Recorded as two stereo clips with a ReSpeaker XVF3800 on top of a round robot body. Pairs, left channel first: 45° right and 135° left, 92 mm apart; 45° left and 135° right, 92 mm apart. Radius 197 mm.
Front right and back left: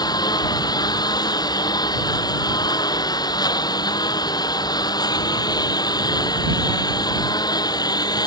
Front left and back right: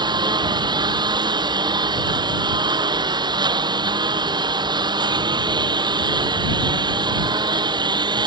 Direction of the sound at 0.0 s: 95° right.